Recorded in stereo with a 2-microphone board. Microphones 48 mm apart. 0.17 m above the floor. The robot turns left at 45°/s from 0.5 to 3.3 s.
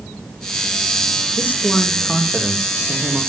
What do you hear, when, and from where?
1.4 s a man speaking: 45° left, 8 m; by 3.2 s 40° right, 8 m